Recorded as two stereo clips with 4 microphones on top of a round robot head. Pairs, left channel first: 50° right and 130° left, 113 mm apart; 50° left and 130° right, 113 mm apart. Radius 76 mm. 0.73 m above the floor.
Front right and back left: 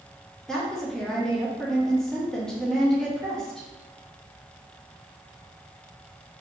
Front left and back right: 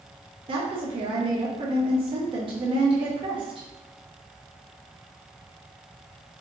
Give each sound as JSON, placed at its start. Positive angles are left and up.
{"t": 0.5, "sound": "a woman speaking", "azimuth_deg": -135, "distance_m": 0.7}